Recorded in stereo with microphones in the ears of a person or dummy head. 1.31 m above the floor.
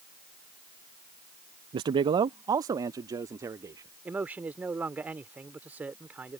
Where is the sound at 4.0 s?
10° right (ahead or behind).